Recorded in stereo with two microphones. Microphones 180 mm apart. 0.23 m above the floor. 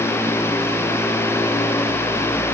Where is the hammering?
I don't hear hammering.